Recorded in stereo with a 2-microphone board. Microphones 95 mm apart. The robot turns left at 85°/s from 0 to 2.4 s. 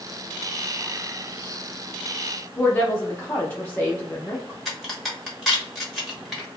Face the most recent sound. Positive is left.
turn(degrees=0)  # may be behind; listen again after turning